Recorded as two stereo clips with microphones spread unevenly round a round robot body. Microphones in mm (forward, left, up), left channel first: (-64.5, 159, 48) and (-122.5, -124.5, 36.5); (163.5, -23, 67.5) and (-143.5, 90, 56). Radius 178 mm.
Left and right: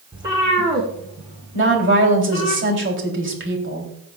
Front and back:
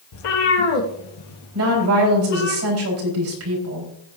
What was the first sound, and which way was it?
A cat meowing, 25° right.